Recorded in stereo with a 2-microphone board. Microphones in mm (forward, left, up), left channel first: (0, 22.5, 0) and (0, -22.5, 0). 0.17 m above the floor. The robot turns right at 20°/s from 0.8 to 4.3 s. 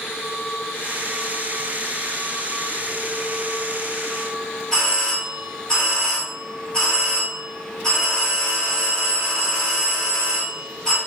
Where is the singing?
No singing in this recording.